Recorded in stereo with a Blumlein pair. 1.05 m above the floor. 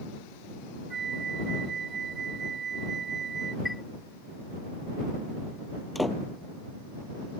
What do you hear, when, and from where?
0.9 s a flute: 20° right
3.6 s a chime: 5° left
6.0 s a door slam: 5° left